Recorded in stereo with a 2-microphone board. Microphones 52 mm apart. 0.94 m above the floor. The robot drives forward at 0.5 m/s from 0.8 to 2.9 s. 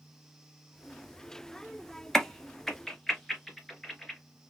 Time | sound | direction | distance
2.1 | a crack | 10° left (ahead or behind) | 0.6 m